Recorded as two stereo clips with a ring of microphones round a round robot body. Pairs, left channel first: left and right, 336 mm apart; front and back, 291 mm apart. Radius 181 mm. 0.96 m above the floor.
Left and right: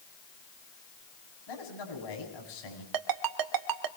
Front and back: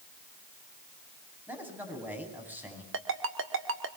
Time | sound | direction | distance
1.5 | a man speaking | 95° left | 9 m
2.9 | a ringtone | 125° right | 1.8 m